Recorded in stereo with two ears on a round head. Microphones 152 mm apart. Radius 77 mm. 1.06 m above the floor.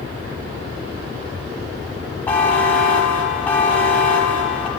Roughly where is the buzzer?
Centre.